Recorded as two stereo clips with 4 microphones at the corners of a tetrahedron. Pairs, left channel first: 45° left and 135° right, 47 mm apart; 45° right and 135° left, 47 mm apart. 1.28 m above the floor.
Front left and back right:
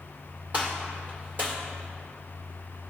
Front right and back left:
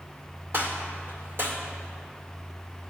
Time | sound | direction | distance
0.5 | a gunshot | 175° left | 2.5 m